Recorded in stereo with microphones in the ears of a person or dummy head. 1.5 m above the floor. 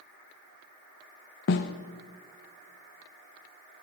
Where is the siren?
I don't hear a siren.